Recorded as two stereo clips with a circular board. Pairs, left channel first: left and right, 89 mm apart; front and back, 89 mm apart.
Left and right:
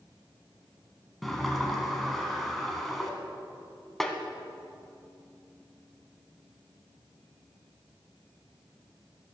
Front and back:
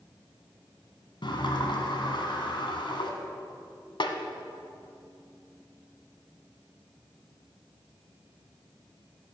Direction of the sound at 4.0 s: 5° left.